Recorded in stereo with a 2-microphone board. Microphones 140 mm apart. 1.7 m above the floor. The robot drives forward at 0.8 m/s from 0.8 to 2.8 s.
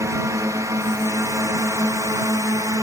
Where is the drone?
20° right (ahead or behind); by 2.8 s 25° right (ahead or behind).